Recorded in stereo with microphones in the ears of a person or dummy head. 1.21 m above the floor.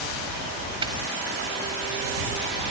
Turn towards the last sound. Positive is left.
turn(degrees=-25)  # may be behind; listen again after turning